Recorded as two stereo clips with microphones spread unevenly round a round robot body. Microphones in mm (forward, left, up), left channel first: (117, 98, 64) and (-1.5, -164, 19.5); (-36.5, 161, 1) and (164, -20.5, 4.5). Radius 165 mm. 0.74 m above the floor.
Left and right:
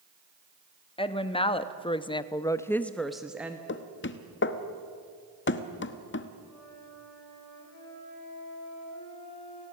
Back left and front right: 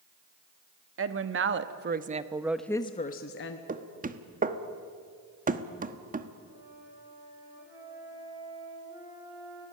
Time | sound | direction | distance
1.0 | a woman speaking | 10° right | 1.5 m
3.7 | knocking | 15° left | 1.3 m
6.4 | a flute | 35° left | 10 m